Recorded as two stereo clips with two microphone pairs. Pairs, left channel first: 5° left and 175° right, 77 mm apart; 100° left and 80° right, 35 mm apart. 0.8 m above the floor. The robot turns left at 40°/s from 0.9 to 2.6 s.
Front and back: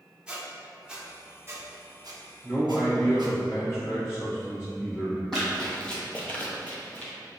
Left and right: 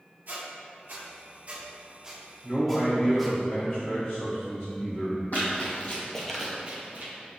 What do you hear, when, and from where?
0.3 s a squeak: 100° right, 0.6 m; by 3.4 s 170° right, 0.6 m
2.4 s a man speaking: 55° left, 1.7 m; by 5.2 s 45° left, 1.7 m
5.3 s running footsteps: 85° left, 1.5 m; by 7.1 s 65° right, 1.3 m